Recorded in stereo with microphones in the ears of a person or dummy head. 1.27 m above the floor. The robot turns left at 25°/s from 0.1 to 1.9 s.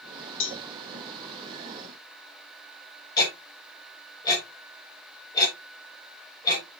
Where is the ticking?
20° left (ahead or behind), 7.5 m.